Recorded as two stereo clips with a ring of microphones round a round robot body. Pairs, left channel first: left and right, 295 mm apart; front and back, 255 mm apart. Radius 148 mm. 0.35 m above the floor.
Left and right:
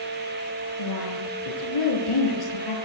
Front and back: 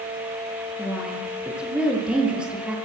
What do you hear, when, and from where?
0.8 s a woman speaking: 95° left, 8 m